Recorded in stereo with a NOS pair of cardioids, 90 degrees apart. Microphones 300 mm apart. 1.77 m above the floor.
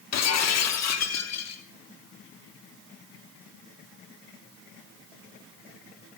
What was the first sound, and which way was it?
Breaking glass, 60° left.